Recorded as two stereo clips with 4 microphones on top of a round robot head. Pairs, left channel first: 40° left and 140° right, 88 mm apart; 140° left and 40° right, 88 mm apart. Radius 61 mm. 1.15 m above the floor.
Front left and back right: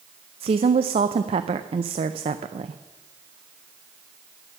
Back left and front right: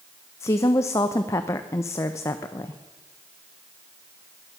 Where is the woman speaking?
160° right, 0.5 m.